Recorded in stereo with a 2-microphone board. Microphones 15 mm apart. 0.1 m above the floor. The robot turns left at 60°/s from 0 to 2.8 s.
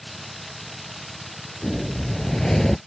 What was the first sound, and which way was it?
A whoosh, 105° left.